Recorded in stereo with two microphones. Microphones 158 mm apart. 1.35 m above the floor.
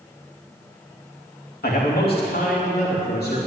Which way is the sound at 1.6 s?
80° left.